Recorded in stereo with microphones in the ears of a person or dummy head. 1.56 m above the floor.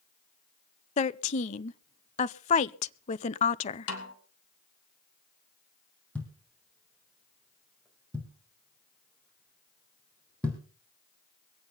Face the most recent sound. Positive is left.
turn(degrees=5)  # may be behind; listen again after turning